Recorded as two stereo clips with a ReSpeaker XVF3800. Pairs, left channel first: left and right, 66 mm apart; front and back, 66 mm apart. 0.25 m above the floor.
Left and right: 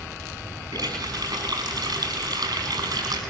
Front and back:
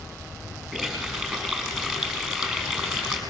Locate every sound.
0.7 s a running tap: 90° right, 7 m